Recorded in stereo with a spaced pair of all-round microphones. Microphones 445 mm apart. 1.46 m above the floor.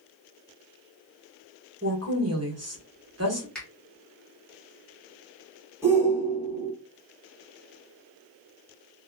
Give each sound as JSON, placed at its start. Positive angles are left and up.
{"t": 1.8, "sound": "a woman speaking", "side_deg": -35, "distance_m": 1.3}
{"t": 3.5, "sound": "a finger snap", "side_deg": 0, "distance_m": 1.6}
{"t": 5.8, "sound": "a shout", "side_deg": -5, "distance_m": 2.0}